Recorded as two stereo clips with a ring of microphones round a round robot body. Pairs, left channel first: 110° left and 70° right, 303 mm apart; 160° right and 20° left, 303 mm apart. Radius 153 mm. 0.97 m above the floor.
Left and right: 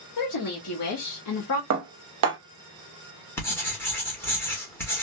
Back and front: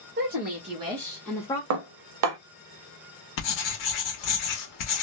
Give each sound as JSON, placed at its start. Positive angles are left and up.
{"t": 0.2, "sound": "a woman speaking", "azimuth_deg": 80, "distance_m": 1.3}
{"t": 1.7, "sound": "dishes clattering", "azimuth_deg": -20, "distance_m": 0.7}
{"t": 3.4, "sound": "writing", "azimuth_deg": -165, "distance_m": 1.2}